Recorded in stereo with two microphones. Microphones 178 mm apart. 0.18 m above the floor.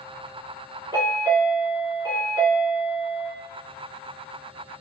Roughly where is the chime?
Right.